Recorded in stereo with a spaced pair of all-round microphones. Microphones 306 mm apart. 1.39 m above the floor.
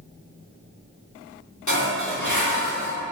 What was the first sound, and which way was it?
Dishes clattering, 70° left (ahead or behind).